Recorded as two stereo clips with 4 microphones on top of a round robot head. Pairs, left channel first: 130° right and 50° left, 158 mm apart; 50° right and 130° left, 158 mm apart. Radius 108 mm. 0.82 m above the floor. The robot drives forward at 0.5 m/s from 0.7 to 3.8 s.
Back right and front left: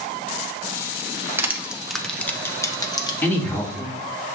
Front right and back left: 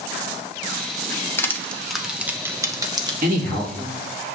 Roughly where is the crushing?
Ahead.